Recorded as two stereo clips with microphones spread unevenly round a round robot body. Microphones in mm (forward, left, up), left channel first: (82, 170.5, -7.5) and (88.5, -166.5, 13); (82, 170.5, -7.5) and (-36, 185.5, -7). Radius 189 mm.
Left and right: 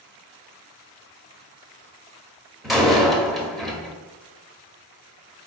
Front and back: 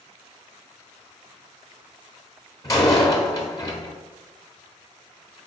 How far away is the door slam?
About 0.8 m.